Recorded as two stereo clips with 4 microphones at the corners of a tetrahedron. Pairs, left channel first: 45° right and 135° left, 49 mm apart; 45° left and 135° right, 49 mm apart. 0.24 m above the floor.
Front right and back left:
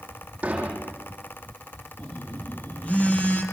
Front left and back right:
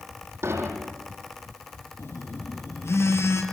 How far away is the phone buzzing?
About 7 m.